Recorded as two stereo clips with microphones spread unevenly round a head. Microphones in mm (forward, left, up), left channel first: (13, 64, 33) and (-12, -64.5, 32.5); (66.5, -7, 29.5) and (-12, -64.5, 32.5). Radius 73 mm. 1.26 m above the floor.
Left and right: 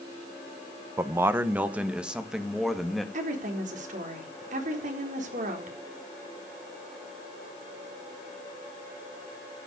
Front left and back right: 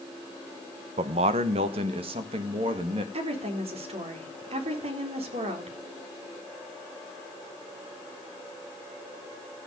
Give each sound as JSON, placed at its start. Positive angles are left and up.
{"t": 1.0, "sound": "a man speaking", "azimuth_deg": -170, "distance_m": 1.3}
{"t": 3.1, "sound": "a woman speaking", "azimuth_deg": -130, "distance_m": 4.0}